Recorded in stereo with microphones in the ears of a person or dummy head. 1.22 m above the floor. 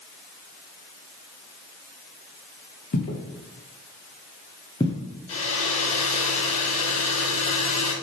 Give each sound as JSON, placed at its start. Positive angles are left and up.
{"t": 2.9, "sound": "footsteps", "side_deg": 45, "distance_m": 1.9}
{"t": 5.3, "sound": "a hair dryer", "side_deg": 35, "distance_m": 2.5}